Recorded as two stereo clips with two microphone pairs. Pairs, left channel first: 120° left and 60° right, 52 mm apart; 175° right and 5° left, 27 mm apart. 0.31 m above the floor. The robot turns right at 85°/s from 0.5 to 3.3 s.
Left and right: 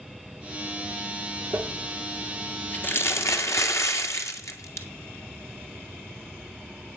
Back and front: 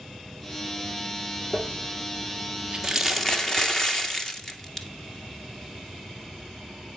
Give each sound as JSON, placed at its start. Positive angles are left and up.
{"t": 1.5, "sound": "crumpling", "azimuth_deg": -40, "distance_m": 1.7}